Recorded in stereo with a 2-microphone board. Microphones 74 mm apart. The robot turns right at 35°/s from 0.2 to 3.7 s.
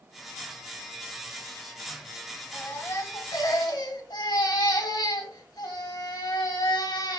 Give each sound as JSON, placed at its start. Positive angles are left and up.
{"t": 2.5, "sound": "a baby crying", "azimuth_deg": 25, "distance_m": 2.0}